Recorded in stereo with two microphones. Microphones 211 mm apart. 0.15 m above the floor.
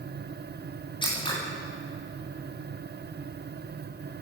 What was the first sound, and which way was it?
Scissors, 20° left (ahead or behind).